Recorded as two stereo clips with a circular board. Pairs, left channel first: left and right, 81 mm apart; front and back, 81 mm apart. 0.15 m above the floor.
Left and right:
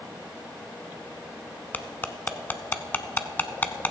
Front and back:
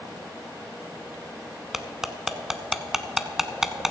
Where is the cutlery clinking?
105° left, 0.7 m.